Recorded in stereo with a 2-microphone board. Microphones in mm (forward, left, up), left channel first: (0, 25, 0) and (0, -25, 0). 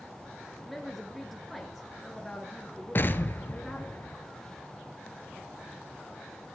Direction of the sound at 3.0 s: 45° left (ahead or behind).